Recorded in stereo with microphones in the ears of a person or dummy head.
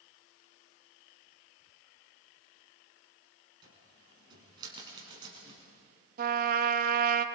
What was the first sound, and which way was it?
A cupboard door, 25° right (ahead or behind).